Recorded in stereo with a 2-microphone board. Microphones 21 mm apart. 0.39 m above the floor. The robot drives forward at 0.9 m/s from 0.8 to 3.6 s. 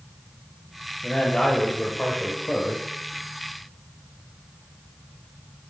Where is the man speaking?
45° left (ahead or behind), 1.5 m; by 2.8 s 35° left (ahead or behind), 1.7 m.